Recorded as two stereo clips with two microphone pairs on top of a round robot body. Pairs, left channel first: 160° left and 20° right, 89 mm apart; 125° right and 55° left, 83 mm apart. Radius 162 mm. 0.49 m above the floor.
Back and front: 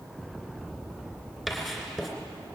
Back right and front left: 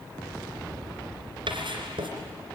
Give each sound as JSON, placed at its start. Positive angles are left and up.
{"t": 1.5, "sound": "writing", "azimuth_deg": 65, "distance_m": 3.0}